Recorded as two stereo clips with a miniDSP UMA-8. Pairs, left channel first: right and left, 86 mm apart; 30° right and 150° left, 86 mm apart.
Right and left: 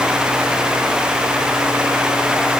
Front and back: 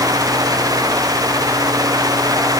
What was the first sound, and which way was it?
Only background noise.